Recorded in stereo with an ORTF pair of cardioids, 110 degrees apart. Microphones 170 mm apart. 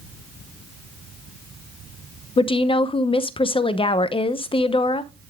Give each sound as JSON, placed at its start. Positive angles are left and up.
{"t": 2.4, "sound": "a woman speaking", "azimuth_deg": 30, "distance_m": 0.8}